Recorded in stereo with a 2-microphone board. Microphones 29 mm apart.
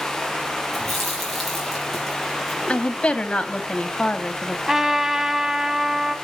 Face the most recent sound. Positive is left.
turn(degrees=-20)  # may be behind; listen again after turning